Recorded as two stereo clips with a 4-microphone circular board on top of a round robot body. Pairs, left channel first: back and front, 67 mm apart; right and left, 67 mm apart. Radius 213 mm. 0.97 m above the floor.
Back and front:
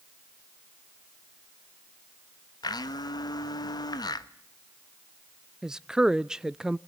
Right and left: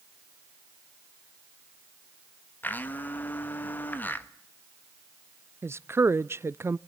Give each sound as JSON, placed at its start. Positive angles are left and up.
{"t": 2.6, "sound": "a blender", "azimuth_deg": -155, "distance_m": 1.1}
{"t": 5.6, "sound": "a woman speaking", "azimuth_deg": 75, "distance_m": 0.7}